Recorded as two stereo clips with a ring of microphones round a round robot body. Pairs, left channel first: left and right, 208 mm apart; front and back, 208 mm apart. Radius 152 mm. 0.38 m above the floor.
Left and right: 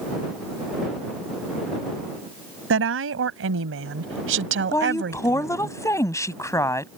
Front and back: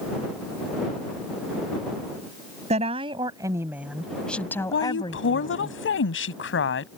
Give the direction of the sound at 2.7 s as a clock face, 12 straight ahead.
4 o'clock.